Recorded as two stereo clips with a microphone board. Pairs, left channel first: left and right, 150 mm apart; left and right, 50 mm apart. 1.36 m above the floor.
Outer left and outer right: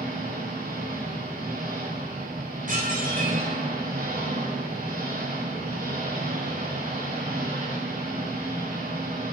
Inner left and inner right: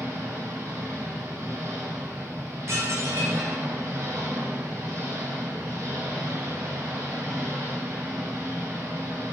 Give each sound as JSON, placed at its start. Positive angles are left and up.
{"t": 0.0, "sound": "an engine running", "side_deg": -85, "distance_m": 5.5}
{"t": 2.7, "sound": "dishes clattering", "side_deg": -65, "distance_m": 4.0}